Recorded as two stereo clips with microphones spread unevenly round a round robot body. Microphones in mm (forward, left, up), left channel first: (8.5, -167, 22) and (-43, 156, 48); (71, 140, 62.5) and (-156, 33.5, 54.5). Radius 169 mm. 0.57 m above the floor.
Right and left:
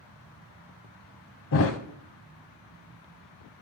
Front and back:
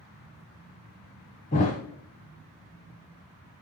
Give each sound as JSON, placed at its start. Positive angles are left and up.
{"t": 1.5, "sound": "a thud", "azimuth_deg": -35, "distance_m": 0.5}